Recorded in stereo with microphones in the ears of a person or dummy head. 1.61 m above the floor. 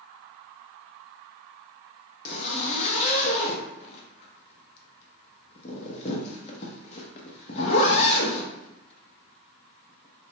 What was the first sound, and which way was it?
A zipper, 40° left (ahead or behind).